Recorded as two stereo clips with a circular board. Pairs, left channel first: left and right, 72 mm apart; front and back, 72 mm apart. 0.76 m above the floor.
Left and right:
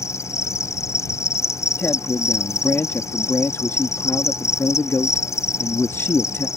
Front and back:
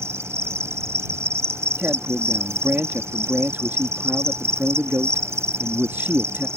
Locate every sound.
0.0 s an insect: 135° left
1.8 s a man speaking: 130° left